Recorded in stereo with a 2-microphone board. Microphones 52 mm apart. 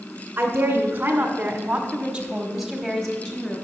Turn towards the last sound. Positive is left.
turn(degrees=20)  # may be behind; listen again after turning